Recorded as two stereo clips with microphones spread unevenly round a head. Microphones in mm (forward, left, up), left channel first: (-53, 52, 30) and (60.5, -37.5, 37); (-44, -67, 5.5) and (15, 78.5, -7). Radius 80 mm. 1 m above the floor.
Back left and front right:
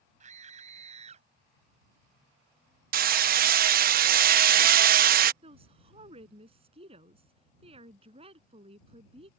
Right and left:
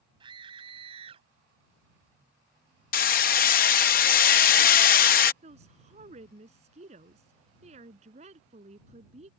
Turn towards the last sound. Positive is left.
turn(degrees=15)